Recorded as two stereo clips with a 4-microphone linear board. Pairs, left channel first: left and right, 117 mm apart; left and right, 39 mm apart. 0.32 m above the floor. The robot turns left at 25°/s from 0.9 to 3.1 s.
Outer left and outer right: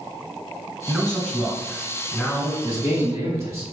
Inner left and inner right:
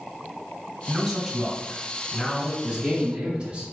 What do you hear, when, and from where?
0.9 s a man speaking: 10° right (ahead or behind), 1.6 m; by 2.5 s 5° left (ahead or behind), 1.6 m
2.6 s a man speaking: 15° right (ahead or behind), 2.0 m; by 3.6 s 25° right (ahead or behind), 2.0 m